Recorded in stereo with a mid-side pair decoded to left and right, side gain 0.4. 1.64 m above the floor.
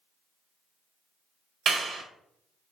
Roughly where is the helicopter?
I don't hear a helicopter.